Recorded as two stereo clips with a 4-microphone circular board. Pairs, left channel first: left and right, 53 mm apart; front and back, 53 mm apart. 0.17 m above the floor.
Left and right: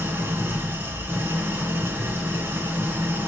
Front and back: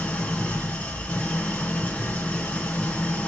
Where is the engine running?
60° right, 1.7 m.